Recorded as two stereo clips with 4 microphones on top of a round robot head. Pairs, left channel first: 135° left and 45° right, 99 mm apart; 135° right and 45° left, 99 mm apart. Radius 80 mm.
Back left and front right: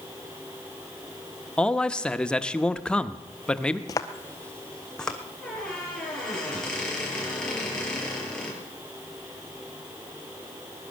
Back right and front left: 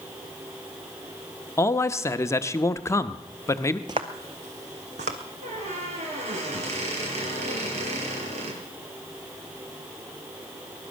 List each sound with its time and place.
1.6 s a man speaking: 155° right, 0.8 m
3.9 s footsteps: 95° left, 0.5 m; by 5.2 s 50° left, 1.6 m
5.4 s a squeak: 50° left, 6 m